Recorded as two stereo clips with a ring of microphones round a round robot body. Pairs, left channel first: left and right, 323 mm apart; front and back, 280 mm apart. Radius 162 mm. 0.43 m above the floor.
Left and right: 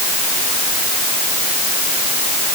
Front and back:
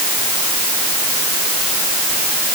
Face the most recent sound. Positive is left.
No sound to turn to.